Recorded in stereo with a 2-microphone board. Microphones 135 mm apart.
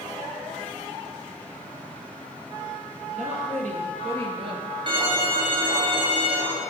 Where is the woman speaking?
60° right (ahead or behind), 3.5 m; by 4.7 s 40° right (ahead or behind), 2 m.